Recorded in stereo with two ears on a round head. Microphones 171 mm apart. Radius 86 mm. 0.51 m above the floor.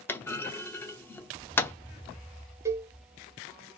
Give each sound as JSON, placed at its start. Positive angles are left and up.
{"t": 0.1, "sound": "a clunk", "side_deg": 10, "distance_m": 0.7}
{"t": 2.6, "sound": "a cowbell", "side_deg": -15, "distance_m": 0.6}